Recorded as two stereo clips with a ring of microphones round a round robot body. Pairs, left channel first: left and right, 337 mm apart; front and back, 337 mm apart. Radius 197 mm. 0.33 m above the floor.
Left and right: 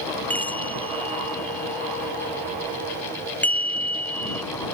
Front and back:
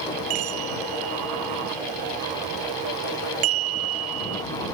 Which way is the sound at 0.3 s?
175° left.